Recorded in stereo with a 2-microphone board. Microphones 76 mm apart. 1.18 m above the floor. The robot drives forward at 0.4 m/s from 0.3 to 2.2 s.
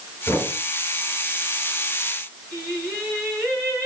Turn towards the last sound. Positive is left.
turn(degrees=20)  # may be behind; listen again after turning